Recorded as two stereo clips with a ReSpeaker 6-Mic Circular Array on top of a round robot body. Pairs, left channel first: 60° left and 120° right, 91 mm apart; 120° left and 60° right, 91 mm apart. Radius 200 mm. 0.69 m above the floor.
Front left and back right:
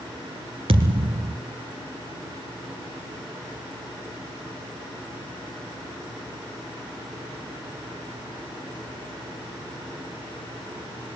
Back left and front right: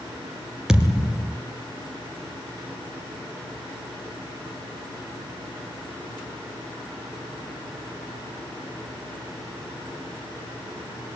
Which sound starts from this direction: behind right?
A thud, at 0.7 s.